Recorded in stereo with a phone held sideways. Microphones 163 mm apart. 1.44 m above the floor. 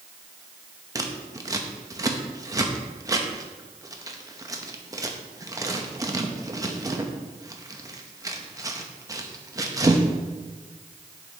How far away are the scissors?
About 0.7 m.